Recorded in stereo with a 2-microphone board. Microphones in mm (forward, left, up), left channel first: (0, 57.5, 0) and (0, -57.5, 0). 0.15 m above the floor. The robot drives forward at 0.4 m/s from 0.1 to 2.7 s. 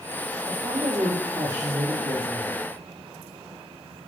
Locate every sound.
0.5 s a woman speaking: 45° right (ahead or behind), 5.5 m; by 2.5 s 50° right (ahead or behind), 5 m